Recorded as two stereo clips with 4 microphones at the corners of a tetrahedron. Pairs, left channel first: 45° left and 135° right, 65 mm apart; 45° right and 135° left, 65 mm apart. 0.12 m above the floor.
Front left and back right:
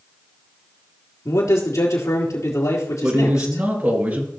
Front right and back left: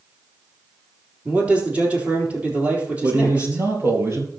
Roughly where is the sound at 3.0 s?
Behind.